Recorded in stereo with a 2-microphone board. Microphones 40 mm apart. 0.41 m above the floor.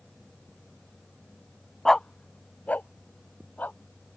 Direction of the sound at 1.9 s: 10° left (ahead or behind).